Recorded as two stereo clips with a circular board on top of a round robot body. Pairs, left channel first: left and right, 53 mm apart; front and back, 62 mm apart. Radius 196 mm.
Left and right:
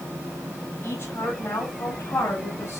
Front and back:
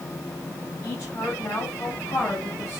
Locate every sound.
0.8 s a woman speaking: 50° left, 8.5 m; by 2.8 s 55° left, 9.5 m